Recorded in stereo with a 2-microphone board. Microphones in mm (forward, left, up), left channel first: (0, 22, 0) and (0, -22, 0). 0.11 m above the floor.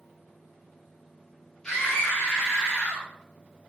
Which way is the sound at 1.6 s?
10° left (ahead or behind).